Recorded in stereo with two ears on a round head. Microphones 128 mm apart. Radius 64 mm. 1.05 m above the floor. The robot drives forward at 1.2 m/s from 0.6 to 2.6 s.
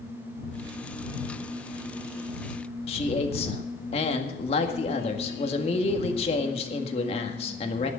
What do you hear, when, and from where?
2.9 s a man speaking: 40° left (ahead or behind), 1.8 m